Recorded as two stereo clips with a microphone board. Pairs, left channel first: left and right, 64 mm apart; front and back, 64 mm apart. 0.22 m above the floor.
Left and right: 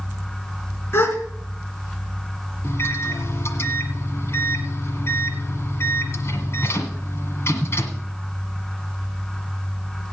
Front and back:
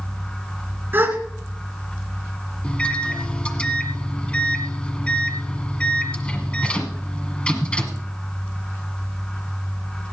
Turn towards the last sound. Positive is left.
turn(degrees=70)